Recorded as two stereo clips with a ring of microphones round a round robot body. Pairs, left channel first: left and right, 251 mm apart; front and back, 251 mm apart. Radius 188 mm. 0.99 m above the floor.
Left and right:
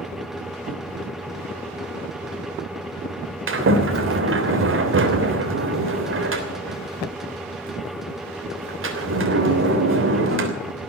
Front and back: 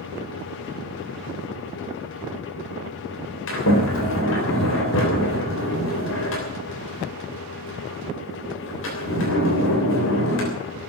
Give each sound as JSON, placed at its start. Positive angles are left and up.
{"t": 3.5, "sound": "a sliding door", "azimuth_deg": -55, "distance_m": 3.0}